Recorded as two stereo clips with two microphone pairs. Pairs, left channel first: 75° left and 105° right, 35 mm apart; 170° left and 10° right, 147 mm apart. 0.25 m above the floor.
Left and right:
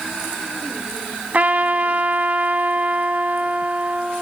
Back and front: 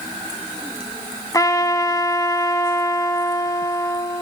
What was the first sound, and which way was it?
A trumpet, 130° right.